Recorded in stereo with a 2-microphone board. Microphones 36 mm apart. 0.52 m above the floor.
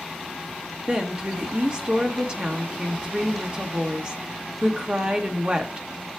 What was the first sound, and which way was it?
A woman speaking, 30° right (ahead or behind).